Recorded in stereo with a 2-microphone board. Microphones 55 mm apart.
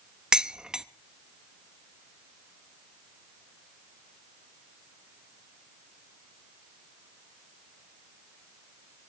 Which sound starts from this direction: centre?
Dishes clattering, at 0.3 s.